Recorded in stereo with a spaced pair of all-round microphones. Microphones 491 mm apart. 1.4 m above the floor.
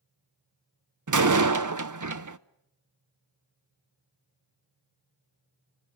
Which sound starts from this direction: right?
A door slam, at 1.1 s.